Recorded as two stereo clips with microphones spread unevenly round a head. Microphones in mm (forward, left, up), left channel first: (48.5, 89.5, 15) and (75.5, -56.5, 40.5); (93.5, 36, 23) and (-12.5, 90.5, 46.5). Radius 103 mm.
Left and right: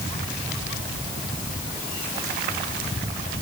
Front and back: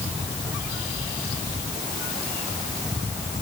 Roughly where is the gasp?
I don't hear a gasp.